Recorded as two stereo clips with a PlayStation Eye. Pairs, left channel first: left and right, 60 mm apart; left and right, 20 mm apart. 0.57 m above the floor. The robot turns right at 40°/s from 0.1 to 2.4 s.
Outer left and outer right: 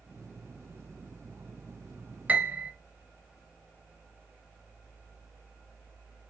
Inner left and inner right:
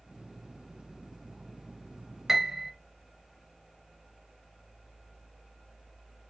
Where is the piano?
25° right (ahead or behind), 0.9 m; by 2.7 s 30° right (ahead or behind), 0.9 m.